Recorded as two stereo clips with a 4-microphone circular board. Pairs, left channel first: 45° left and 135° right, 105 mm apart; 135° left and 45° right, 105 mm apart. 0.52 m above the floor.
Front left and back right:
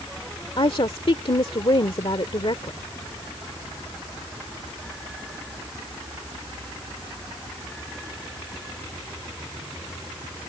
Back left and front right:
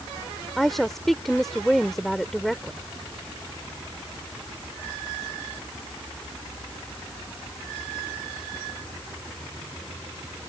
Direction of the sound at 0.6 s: 50° left.